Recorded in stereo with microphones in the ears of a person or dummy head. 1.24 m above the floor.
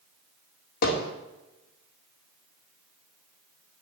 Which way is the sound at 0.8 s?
55° left (ahead or behind).